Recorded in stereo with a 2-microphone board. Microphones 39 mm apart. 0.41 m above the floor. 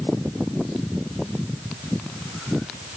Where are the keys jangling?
I don't hear keys jangling.